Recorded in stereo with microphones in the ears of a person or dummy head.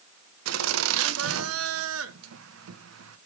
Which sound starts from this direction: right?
Laughter, at 0.5 s.